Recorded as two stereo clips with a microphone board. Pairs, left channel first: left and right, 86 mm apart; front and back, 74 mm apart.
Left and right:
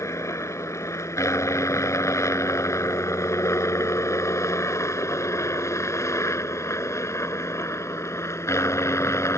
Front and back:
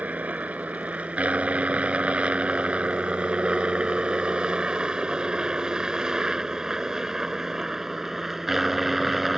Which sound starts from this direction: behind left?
A helicopter, at 0.0 s.